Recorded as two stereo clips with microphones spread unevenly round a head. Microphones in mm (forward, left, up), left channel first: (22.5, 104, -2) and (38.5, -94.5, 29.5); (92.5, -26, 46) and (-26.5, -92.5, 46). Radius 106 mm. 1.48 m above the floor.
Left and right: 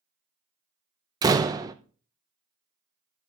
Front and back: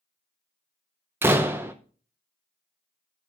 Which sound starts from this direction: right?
A door slam, at 1.2 s.